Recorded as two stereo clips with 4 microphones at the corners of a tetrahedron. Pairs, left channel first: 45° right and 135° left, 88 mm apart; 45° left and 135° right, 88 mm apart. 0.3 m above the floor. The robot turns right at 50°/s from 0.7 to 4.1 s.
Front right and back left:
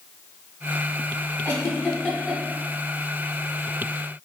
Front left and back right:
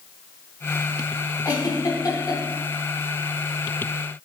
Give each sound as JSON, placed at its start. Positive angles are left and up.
{"t": 1.4, "sound": "a giggle", "azimuth_deg": 5, "distance_m": 1.5}